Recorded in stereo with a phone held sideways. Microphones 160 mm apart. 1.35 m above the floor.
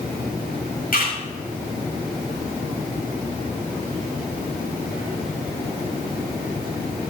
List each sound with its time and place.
0.9 s a camera shutter: 65° left (ahead or behind), 7.5 m